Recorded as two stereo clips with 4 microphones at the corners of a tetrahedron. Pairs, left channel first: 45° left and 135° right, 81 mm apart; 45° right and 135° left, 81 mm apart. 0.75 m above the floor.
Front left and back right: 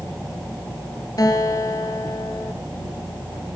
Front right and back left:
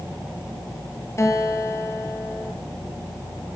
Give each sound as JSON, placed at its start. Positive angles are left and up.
{"t": 1.2, "sound": "a guitar", "azimuth_deg": 5, "distance_m": 2.5}